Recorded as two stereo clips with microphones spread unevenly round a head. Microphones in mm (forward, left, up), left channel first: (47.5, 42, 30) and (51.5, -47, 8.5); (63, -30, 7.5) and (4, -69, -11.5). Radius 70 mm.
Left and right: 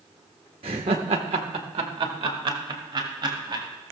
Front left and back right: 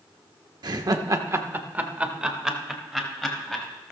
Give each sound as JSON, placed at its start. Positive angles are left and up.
{"t": 0.6, "sound": "laughter", "azimuth_deg": -125, "distance_m": 1.6}